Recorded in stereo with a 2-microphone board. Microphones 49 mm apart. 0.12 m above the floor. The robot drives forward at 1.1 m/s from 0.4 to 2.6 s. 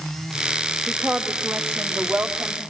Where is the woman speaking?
45° right (ahead or behind), 6 m; by 2.6 s 60° right (ahead or behind), 5 m.